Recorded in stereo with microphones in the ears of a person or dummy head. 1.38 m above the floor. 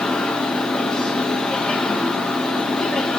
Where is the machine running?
5° right (ahead or behind), 1.6 m.